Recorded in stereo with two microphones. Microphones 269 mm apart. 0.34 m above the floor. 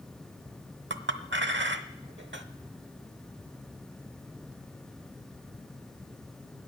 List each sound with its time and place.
0.9 s a clink: 45° right (ahead or behind), 0.8 m